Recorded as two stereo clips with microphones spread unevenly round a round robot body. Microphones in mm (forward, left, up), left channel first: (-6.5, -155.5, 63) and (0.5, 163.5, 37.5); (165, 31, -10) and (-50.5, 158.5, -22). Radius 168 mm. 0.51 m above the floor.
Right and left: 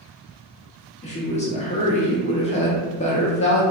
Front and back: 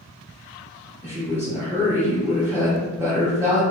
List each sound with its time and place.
1.0 s a woman speaking: 145° right, 0.8 m